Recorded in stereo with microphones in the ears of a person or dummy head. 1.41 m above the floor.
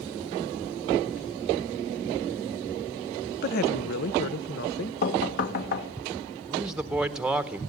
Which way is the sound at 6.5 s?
Centre (ahead or behind).